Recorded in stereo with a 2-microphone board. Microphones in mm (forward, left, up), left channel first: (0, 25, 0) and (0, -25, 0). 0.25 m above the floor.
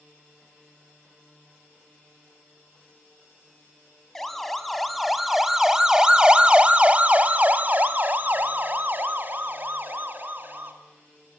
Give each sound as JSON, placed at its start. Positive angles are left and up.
{"t": 4.2, "sound": "a siren", "side_deg": 5, "distance_m": 2.5}